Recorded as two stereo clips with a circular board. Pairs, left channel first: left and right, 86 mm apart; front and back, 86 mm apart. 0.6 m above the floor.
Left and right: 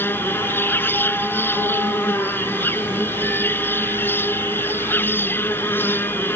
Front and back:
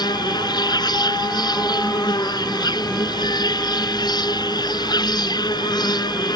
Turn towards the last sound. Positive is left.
turn(degrees=30)